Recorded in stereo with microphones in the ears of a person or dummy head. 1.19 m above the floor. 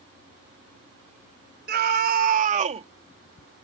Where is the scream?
55° right (ahead or behind); by 2.9 s 35° right (ahead or behind).